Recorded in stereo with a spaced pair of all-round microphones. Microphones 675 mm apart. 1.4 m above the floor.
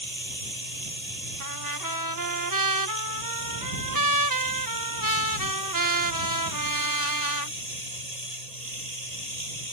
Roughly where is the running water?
Right.